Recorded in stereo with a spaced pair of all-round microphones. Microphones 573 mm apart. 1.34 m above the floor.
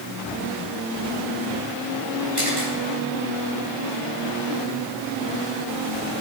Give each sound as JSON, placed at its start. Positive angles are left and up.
{"t": 2.4, "sound": "a camera shutter", "side_deg": 15, "distance_m": 7.0}